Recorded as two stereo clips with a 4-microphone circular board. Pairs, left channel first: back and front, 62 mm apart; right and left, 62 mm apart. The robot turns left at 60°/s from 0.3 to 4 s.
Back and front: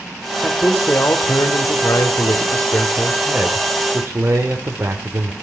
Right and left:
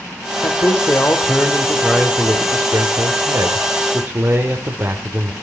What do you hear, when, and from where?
0.4 s a man speaking: 100° right, 2.5 m; by 5.3 s 45° left, 2.5 m